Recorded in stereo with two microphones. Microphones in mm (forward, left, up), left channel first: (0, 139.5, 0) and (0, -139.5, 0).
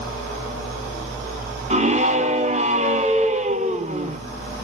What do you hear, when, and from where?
1.7 s a scream: 25° right (ahead or behind), 0.9 m